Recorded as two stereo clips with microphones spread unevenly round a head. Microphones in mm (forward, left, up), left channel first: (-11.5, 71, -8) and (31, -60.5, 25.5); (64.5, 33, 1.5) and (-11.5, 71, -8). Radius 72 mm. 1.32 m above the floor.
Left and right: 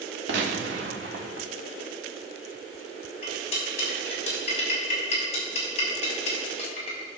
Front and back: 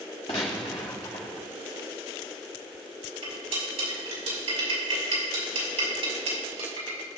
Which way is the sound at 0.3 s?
80° right.